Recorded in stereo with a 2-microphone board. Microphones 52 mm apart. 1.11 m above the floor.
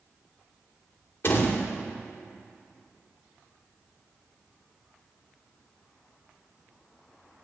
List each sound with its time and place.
1.2 s a door slam: 50° left (ahead or behind), 2.5 m